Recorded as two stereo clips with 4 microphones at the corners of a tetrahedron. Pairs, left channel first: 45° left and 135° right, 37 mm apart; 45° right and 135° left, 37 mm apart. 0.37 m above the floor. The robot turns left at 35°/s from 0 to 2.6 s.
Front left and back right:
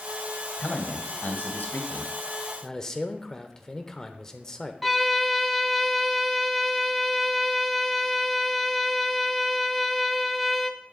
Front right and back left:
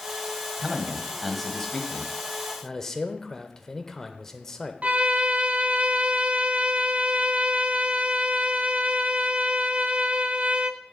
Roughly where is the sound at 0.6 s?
Ahead left.